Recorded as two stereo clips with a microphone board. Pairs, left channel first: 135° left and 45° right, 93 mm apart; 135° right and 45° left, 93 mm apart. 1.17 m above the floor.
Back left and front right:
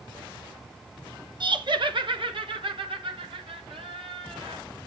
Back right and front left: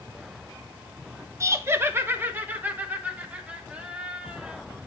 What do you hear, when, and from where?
1.4 s laughter: 10° right, 1.1 m; by 4.6 s 35° right, 3 m